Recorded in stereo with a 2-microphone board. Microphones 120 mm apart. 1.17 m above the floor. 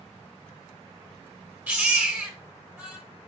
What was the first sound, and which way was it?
A baby crying, 15° right (ahead or behind).